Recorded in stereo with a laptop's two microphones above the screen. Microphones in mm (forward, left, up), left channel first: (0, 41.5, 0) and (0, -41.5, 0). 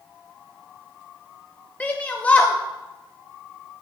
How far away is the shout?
About 0.6 m.